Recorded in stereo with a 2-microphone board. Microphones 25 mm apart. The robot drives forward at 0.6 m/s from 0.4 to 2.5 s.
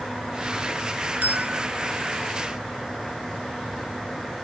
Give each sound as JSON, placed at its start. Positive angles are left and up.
{"t": 1.2, "sound": "a bell", "side_deg": -80}